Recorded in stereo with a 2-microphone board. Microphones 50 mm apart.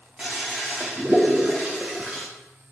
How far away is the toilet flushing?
About 1.8 m.